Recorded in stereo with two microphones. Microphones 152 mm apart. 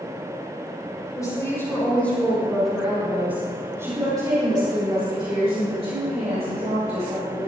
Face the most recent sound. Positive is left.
turn(degrees=-55)  # may be behind; listen again after turning